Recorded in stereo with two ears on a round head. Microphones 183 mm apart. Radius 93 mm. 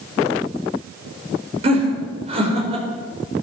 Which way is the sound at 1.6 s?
30° right (ahead or behind).